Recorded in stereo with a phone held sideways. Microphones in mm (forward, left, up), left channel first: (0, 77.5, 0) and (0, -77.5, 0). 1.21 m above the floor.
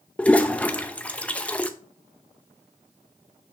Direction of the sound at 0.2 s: 10° left (ahead or behind).